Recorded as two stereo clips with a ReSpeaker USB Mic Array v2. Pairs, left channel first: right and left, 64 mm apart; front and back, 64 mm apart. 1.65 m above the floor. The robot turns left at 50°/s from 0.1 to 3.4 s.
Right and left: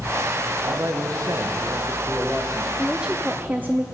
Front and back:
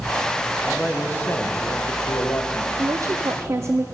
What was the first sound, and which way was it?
A man speaking, 90° left.